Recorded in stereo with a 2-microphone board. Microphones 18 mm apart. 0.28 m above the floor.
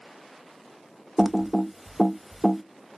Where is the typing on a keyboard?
15° right (ahead or behind), 0.5 m.